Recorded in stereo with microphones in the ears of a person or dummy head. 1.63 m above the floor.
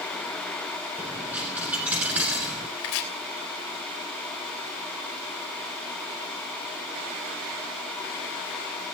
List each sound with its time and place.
1.0 s a dropped coin: 5° right (ahead or behind), 1.6 m
2.8 s chopping: 70° left (ahead or behind), 3 m